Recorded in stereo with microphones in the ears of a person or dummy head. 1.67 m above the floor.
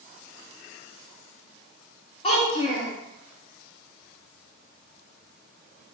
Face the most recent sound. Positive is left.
turn(degrees=35)  # may be behind; listen again after turning